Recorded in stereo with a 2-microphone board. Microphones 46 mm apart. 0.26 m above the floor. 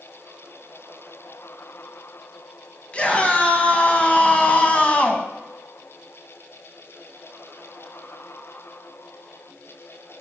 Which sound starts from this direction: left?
A scream, at 2.9 s.